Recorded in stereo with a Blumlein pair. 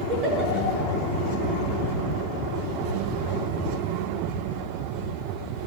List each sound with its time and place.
0.1 s a giggle: 30° right, 7 m